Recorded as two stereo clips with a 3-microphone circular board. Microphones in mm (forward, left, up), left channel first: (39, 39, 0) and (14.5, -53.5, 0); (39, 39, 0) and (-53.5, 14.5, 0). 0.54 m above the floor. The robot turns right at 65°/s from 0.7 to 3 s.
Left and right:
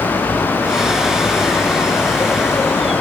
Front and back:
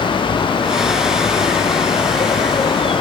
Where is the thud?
I don't hear a thud.